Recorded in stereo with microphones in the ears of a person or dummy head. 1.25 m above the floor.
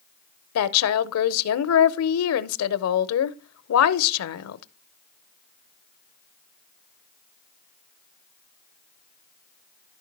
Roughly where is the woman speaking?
Left.